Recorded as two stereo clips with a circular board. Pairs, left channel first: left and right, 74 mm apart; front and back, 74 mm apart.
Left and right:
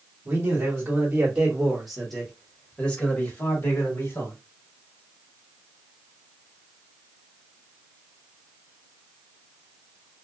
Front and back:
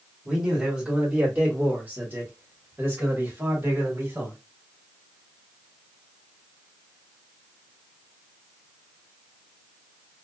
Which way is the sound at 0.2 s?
110° right.